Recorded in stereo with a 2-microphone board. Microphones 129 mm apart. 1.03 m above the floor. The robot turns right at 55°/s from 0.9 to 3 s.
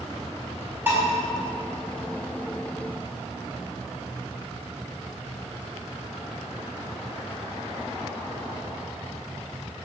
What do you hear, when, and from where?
0.9 s dishes clattering: 15° right (ahead or behind), 4.5 m; by 1.0 s 25° right (ahead or behind), 4.5 m